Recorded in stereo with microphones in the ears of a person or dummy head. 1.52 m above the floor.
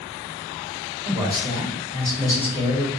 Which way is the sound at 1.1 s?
15° right (ahead or behind).